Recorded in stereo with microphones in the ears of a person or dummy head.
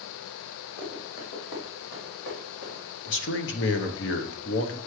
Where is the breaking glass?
No breaking glass in this recording.